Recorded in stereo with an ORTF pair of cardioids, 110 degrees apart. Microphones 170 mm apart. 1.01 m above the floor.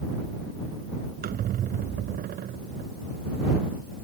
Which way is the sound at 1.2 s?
55° right.